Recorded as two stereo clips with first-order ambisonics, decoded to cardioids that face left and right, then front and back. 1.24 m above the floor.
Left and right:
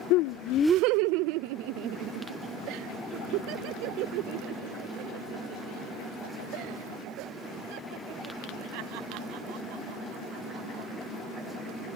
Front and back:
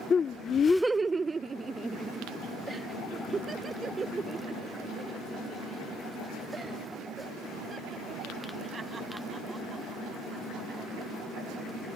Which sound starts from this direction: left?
Laughter, at 0.1 s.